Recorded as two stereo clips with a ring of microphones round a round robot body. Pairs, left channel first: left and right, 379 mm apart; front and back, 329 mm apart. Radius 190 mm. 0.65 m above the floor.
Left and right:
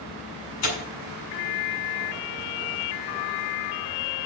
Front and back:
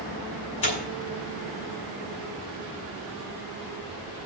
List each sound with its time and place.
0.6 s tearing paper: 45° left, 6 m